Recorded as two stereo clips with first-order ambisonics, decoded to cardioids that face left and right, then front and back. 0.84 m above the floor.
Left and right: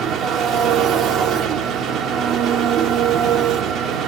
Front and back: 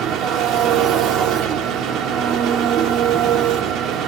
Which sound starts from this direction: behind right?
An engine running, at 0.0 s.